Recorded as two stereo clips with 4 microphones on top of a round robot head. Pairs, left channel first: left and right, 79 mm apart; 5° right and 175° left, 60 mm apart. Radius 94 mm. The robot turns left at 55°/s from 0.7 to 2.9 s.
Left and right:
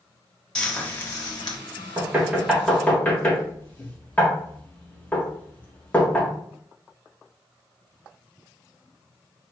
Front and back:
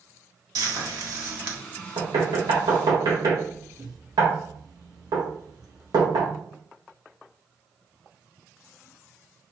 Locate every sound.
0.6 s frying: 170° left, 1.2 m; by 1.6 s 120° left, 1.2 m
2.0 s knocking: 145° right, 1.2 m; by 6.3 s 160° left, 1.2 m